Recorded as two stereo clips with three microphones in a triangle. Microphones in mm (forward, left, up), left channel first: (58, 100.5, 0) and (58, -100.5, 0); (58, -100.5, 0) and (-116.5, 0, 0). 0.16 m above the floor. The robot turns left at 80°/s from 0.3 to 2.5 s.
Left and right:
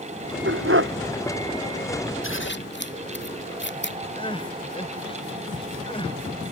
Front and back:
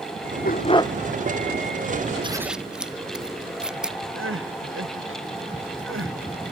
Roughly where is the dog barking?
Right.